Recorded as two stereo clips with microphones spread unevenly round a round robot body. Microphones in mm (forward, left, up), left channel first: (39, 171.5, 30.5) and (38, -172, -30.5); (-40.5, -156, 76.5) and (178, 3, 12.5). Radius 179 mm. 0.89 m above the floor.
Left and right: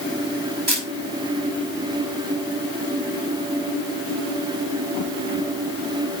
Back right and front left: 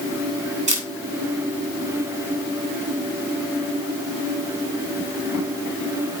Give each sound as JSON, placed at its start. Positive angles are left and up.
{"t": 0.7, "sound": "a camera shutter", "azimuth_deg": -30, "distance_m": 5.5}